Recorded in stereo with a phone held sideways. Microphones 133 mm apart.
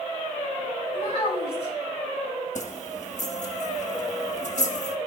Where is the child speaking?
45° left (ahead or behind), 5 m.